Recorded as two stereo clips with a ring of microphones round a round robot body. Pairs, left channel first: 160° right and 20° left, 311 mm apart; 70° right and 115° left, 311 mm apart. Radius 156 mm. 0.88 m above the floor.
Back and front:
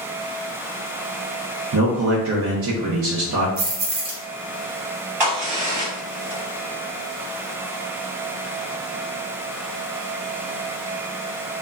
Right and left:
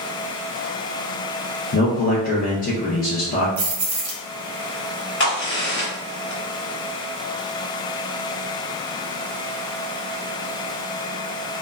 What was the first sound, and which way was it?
A man speaking, 15° right.